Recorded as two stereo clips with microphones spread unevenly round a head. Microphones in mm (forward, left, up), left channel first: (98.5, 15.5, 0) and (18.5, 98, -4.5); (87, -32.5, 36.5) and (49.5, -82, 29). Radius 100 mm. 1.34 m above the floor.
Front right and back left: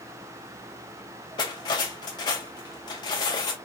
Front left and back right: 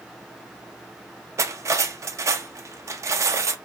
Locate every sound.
1.4 s cutlery clinking: 95° right, 0.6 m